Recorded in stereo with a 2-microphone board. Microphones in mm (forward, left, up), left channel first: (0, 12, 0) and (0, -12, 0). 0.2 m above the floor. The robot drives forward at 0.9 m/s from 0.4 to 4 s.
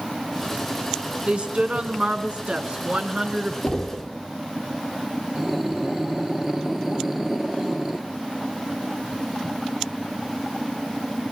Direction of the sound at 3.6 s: 30° left (ahead or behind).